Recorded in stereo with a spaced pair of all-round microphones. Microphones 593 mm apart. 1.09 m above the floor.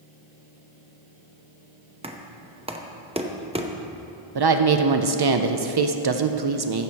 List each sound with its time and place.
2.0 s knocking: 10° right (ahead or behind), 0.7 m
4.3 s a woman speaking: 40° right (ahead or behind), 0.5 m